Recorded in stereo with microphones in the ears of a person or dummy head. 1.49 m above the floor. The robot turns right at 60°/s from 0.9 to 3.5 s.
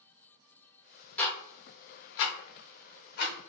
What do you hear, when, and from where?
1.2 s ticking: 5° left (ahead or behind), 0.6 m; by 3.3 s 45° left (ahead or behind), 0.6 m